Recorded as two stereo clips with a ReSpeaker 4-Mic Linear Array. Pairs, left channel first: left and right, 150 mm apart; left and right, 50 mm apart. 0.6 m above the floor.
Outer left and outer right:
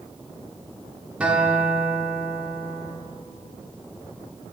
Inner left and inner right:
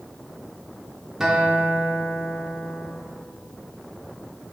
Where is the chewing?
No chewing in this recording.